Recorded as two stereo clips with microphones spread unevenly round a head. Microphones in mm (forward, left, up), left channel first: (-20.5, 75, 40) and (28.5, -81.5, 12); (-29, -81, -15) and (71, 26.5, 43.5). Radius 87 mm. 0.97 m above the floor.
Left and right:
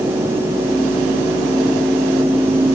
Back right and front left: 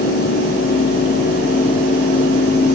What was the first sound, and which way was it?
Only background noise.